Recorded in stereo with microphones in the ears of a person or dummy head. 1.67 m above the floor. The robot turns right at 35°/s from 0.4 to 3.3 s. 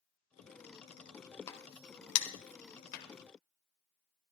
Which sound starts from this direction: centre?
A crack, at 1.5 s.